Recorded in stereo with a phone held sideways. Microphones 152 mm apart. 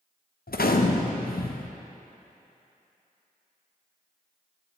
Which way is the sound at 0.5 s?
80° left.